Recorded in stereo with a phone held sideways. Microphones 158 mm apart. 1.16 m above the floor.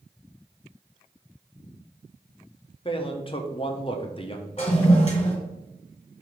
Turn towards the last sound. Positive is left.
turn(degrees=40)  # may be behind; listen again after turning